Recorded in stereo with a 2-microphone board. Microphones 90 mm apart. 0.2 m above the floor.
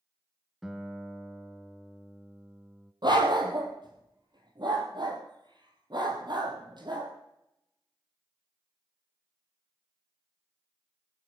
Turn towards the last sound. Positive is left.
turn(degrees=-50)  # may be behind; listen again after turning